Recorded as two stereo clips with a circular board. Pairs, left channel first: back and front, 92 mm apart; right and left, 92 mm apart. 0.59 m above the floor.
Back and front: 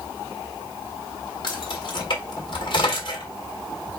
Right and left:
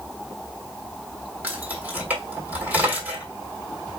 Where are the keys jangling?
160° left, 1.5 m.